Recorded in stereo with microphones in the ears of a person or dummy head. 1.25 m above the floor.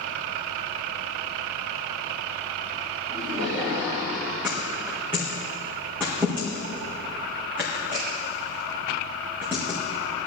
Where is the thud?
10° right (ahead or behind), 5 m.